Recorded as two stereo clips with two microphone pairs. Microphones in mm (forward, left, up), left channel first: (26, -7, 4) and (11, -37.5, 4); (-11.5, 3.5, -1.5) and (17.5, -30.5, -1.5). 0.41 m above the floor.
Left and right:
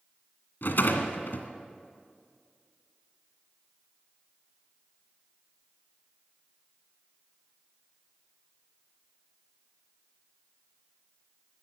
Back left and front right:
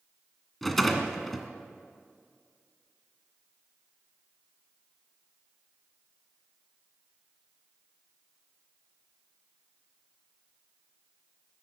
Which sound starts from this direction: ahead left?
A rattle, at 0.6 s.